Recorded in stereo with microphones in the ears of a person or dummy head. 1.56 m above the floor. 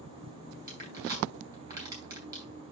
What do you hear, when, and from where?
0.7 s crushing: 20° right (ahead or behind), 5.5 m